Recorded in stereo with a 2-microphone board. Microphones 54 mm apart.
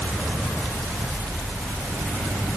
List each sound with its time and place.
Only background noise.